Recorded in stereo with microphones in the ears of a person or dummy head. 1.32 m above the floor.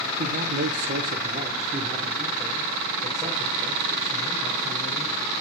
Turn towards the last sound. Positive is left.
turn(degrees=-10)  # may be behind; listen again after turning